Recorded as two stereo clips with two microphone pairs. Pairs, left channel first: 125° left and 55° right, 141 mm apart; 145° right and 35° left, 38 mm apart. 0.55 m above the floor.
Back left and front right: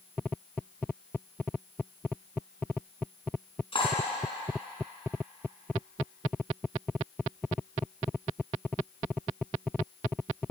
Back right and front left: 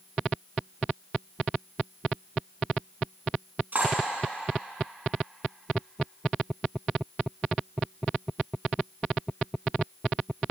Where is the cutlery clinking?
75° left, 3.5 m.